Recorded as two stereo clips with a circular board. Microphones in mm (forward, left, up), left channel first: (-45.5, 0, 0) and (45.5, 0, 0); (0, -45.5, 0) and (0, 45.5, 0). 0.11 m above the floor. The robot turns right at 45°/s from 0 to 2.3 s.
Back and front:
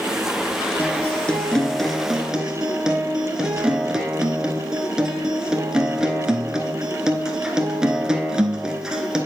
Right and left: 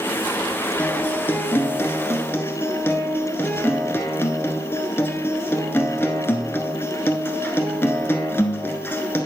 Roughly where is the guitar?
Behind right.